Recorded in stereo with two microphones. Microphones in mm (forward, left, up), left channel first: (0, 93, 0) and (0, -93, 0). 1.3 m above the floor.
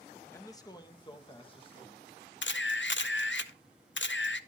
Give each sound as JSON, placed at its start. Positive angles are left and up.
{"t": 0.3, "sound": "a man speaking", "side_deg": 15, "distance_m": 1.0}
{"t": 2.4, "sound": "a camera shutter", "side_deg": 85, "distance_m": 0.7}